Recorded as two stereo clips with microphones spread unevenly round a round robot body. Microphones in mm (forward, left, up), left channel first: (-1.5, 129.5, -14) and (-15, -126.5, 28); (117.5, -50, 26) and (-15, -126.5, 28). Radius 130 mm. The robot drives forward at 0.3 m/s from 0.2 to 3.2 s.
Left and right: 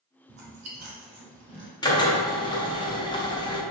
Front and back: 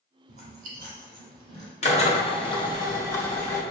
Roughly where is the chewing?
Behind right.